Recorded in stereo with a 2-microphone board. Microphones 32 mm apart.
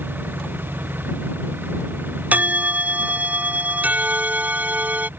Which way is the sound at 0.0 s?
85° right.